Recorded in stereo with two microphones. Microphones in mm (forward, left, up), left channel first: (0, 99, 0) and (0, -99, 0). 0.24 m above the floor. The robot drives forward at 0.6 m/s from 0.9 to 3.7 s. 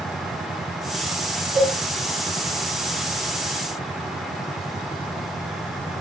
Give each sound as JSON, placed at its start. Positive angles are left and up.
{"t": 1.6, "sound": "a cowbell", "side_deg": 50, "distance_m": 3.5}